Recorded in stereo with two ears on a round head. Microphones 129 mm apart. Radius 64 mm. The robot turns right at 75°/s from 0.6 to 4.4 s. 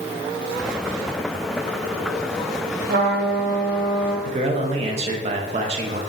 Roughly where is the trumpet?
Right.